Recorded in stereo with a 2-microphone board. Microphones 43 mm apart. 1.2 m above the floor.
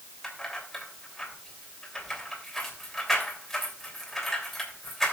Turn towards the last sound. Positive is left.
turn(degrees=5)  # may be behind; listen again after turning